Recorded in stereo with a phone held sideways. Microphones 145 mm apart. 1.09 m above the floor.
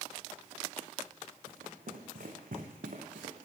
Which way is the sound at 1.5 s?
80° right.